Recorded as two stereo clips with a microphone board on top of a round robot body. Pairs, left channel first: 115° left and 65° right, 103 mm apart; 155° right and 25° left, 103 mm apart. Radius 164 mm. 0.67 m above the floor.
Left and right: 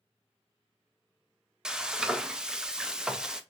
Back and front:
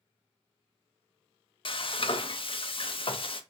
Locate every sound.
1.6 s frying: 150° right, 0.7 m